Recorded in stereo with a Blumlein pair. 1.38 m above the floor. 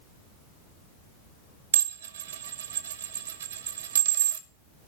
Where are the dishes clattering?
65° right, 1.1 m.